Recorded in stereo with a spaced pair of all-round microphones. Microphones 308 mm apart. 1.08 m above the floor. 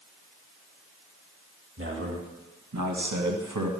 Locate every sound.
1.8 s a man speaking: 40° right (ahead or behind), 2 m; by 3.7 s 65° right (ahead or behind), 1.7 m